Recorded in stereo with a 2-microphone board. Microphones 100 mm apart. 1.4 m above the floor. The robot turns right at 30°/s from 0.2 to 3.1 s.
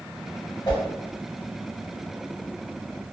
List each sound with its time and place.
0.7 s a whoosh: 45° left (ahead or behind), 1.2 m; by 0.8 s 40° left (ahead or behind), 1.2 m